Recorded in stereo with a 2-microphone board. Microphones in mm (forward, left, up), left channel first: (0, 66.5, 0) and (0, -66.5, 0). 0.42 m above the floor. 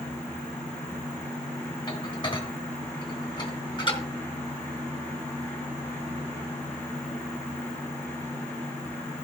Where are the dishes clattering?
35° left (ahead or behind), 3 m.